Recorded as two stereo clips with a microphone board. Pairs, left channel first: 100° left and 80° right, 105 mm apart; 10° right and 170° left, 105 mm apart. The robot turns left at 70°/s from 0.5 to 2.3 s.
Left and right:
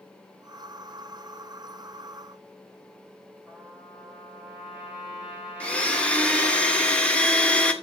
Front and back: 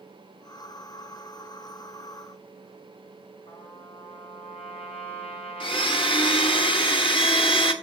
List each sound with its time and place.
3.5 s a trumpet: straight ahead, 7.5 m
5.6 s a blender: 20° left, 1.3 m